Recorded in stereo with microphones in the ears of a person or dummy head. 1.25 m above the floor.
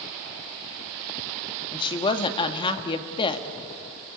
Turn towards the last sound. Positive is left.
turn(degrees=35)  # may be behind; listen again after turning